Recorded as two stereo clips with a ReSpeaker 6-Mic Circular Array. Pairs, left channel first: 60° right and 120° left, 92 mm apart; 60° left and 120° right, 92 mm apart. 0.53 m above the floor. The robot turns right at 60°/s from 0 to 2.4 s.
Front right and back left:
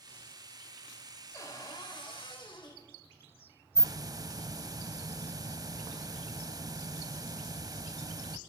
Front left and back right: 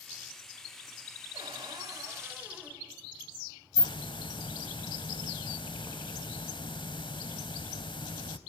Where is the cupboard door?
115° right, 3 m; by 2.8 s 50° right, 3 m.